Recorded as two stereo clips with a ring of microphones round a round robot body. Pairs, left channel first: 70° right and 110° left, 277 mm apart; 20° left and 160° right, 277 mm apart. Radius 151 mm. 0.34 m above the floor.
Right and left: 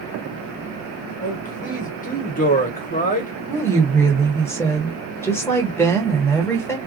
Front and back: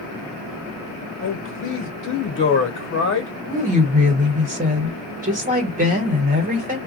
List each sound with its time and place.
1.2 s a man speaking: 15° right, 1.3 m
3.5 s a woman speaking: 140° right, 1.3 m